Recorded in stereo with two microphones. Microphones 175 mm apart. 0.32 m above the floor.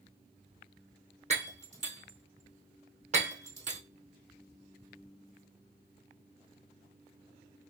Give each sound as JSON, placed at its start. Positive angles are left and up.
{"t": 1.3, "sound": "breaking glass", "side_deg": -40, "distance_m": 2.5}